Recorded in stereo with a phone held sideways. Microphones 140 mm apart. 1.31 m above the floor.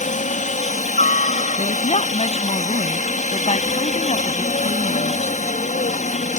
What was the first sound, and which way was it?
A helicopter, 60° left (ahead or behind).